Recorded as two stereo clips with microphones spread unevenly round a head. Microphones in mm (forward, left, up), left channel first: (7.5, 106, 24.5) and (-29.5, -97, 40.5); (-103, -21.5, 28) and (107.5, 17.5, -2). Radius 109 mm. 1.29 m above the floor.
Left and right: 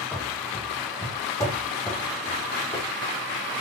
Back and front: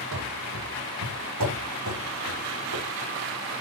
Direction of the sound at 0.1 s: 5° right.